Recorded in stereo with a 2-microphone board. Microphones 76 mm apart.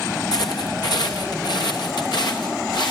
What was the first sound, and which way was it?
Footsteps, 60° left (ahead or behind).